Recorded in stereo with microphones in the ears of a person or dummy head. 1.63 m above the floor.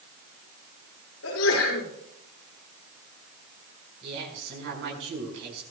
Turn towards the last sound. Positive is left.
turn(degrees=-70)  # may be behind; listen again after turning